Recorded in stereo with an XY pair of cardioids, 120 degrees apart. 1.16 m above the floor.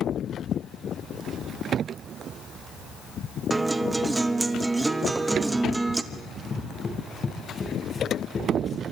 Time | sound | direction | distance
3.5 | a guitar | 15° right | 1.0 m
6.1 | running footsteps | 30° left | 5.5 m